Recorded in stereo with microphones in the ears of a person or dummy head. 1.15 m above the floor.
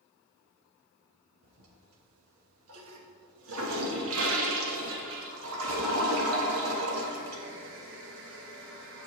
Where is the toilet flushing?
80° right, 1.1 m.